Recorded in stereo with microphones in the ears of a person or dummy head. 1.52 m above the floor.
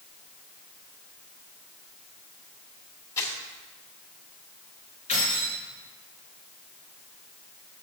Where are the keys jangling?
35° left (ahead or behind), 3.5 m.